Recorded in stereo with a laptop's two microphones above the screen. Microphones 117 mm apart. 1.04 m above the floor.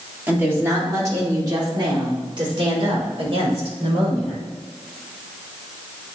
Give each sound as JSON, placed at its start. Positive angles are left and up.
{"t": 0.3, "sound": "a woman speaking", "side_deg": -15, "distance_m": 2.5}